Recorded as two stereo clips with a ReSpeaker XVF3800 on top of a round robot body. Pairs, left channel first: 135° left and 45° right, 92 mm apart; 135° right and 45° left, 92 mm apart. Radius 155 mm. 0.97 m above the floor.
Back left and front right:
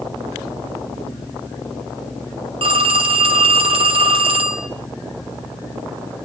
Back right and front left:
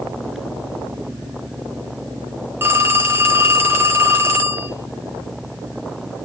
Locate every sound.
2.6 s a phone ringing: 20° right, 2 m